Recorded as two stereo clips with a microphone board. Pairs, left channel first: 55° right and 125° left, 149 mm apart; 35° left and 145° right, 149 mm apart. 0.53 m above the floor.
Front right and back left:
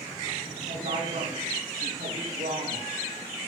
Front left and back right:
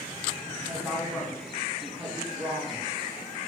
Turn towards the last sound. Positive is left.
turn(degrees=130)